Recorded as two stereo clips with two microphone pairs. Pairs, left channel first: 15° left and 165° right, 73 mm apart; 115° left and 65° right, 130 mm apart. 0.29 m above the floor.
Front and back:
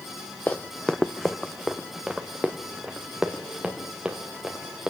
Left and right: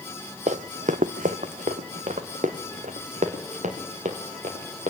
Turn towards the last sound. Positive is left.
turn(degrees=-85)